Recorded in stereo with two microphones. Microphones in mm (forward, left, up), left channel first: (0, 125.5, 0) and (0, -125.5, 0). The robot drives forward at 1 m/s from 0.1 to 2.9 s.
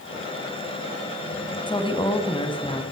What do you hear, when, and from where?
1.7 s a woman speaking: 20° left (ahead or behind), 1.2 m; by 2.8 s 15° left (ahead or behind), 1.3 m